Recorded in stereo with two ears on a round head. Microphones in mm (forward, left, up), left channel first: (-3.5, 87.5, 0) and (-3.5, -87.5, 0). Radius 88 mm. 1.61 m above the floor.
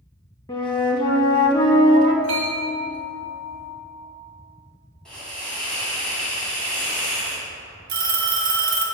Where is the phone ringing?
50° right (ahead or behind), 1.3 m.